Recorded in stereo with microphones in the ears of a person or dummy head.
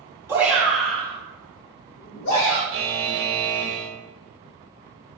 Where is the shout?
15° right (ahead or behind), 1.2 m; by 2.6 s 65° left (ahead or behind), 1.1 m.